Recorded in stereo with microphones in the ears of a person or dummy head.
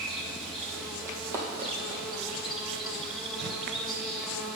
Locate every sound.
0.0 s an insect: centre (ahead or behind), 1.2 m
1.1 s running footsteps: 15° right (ahead or behind), 2.5 m; by 2.8 s centre (ahead or behind), 3 m